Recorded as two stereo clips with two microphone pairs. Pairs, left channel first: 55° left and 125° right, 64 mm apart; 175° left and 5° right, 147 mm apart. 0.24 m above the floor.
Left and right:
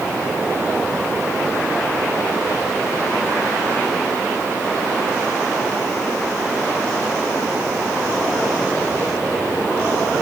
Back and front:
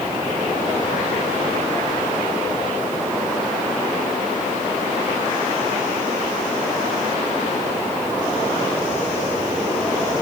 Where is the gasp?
I don't hear a gasp.